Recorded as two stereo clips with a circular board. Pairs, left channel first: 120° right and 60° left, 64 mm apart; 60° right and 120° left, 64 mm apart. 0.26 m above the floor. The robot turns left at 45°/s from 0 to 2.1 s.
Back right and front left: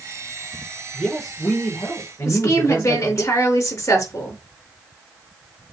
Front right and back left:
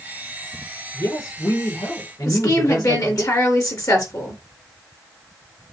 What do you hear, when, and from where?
0.9 s a man speaking: 20° right, 5 m; by 3.2 s 75° right, 5 m
2.2 s a woman speaking: 80° right, 4.5 m